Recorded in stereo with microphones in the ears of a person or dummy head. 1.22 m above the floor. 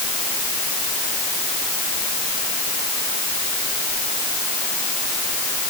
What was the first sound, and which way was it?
Only background noise.